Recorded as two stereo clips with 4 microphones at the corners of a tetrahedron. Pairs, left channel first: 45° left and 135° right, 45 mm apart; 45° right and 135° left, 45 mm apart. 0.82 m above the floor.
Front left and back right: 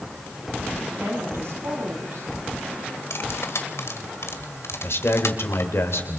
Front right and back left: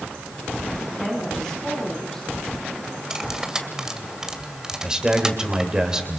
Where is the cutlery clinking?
60° left, 2 m.